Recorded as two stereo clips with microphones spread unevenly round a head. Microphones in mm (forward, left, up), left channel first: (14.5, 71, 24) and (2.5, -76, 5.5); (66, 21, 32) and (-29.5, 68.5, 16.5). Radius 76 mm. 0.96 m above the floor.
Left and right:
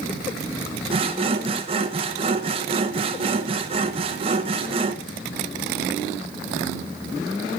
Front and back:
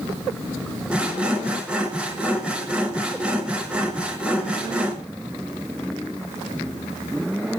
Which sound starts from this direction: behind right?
Sawing, at 0.9 s.